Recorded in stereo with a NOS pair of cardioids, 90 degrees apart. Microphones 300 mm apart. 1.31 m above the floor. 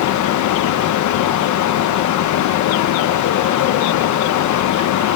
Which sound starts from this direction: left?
A fan, at 0.0 s.